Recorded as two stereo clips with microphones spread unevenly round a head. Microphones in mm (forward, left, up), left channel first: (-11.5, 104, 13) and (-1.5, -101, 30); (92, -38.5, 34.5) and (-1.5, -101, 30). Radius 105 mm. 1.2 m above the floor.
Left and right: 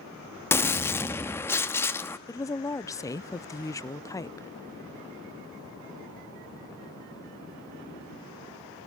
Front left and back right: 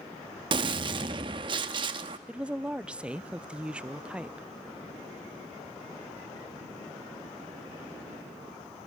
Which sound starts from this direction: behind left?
A woman speaking, at 2.3 s.